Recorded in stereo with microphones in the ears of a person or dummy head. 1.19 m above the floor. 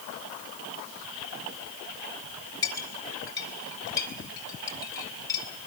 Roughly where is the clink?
Centre.